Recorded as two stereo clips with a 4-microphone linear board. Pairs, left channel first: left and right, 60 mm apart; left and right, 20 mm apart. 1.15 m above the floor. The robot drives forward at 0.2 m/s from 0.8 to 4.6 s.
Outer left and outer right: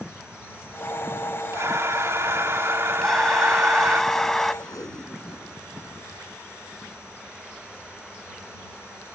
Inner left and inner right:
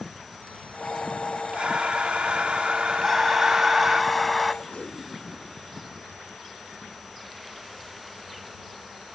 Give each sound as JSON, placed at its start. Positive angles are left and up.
{"t": 1.5, "sound": "breathing", "side_deg": -50}
{"t": 3.0, "sound": "breathing", "side_deg": 5}
{"t": 4.6, "sound": "tape being pulled", "side_deg": 65}